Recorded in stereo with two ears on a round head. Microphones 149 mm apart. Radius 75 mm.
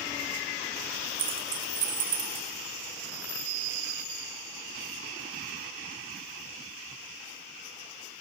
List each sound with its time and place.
1.2 s keys jangling: 30° right (ahead or behind), 1.3 m; by 2.5 s 35° right (ahead or behind), 3 m